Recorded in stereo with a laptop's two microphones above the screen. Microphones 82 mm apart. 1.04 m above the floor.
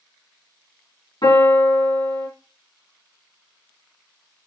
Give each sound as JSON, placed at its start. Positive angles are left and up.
{"t": 1.2, "sound": "a piano", "side_deg": 70, "distance_m": 2.0}